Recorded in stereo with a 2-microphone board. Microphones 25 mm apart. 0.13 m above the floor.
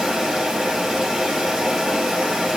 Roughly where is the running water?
Right.